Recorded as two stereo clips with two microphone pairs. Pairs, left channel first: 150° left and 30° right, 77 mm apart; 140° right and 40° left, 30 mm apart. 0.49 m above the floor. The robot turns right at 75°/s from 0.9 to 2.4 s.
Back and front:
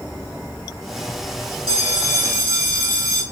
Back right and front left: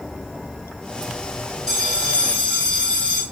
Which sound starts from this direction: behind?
A bell, at 1.7 s.